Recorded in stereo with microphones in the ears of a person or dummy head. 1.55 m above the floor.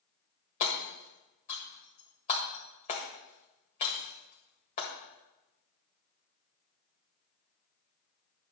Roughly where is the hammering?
Left.